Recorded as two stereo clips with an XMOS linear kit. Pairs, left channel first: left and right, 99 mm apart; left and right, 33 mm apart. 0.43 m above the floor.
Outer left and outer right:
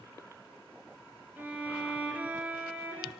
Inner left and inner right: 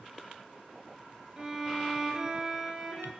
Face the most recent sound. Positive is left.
turn(degrees=-20)  # may be behind; listen again after turning